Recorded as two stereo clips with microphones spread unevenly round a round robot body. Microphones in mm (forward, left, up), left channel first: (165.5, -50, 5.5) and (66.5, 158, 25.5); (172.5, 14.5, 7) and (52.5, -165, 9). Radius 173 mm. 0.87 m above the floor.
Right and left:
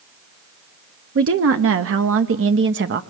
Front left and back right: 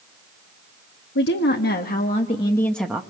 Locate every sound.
1.1 s a woman speaking: 95° left, 1.3 m; by 3.0 s 155° left, 0.9 m